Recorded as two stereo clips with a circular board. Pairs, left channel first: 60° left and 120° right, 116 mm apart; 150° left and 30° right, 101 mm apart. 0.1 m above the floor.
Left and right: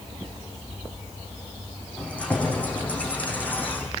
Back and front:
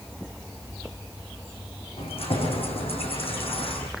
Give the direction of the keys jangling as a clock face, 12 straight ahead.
7 o'clock.